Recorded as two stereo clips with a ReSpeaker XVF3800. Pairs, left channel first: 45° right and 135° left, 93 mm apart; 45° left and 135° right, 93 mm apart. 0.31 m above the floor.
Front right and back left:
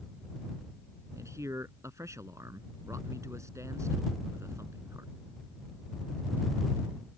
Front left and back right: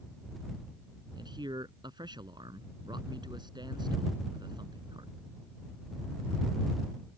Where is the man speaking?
170° right.